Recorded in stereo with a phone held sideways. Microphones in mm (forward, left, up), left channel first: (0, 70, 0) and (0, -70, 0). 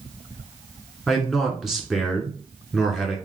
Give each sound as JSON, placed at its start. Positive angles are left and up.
{"t": 1.1, "sound": "a man speaking", "side_deg": 0, "distance_m": 1.2}